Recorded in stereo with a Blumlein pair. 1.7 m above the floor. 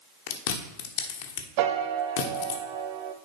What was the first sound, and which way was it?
Chewing, 50° left.